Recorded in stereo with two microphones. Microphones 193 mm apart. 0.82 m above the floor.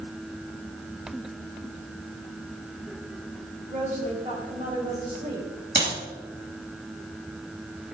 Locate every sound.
3.7 s a woman speaking: 40° right (ahead or behind), 4 m
5.8 s a clap: 65° right (ahead or behind), 5.5 m